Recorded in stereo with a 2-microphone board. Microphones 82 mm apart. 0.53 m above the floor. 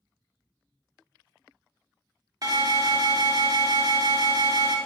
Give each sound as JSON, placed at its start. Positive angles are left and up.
{"t": 2.4, "sound": "an alarm", "side_deg": -45, "distance_m": 0.7}